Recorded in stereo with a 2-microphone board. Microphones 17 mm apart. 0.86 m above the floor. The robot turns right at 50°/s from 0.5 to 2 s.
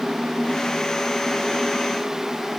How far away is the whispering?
I don't hear whispering.